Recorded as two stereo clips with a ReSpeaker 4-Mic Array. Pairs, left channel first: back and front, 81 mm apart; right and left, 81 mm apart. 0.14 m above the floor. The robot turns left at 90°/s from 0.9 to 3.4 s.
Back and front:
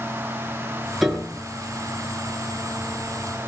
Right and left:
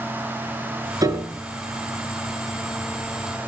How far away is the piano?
About 2 m.